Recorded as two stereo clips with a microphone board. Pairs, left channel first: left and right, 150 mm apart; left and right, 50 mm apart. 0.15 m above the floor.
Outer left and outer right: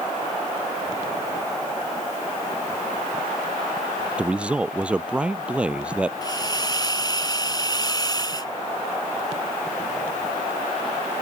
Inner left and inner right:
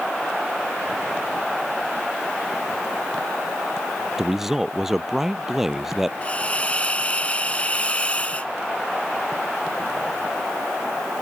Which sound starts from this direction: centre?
A man speaking, at 4.2 s.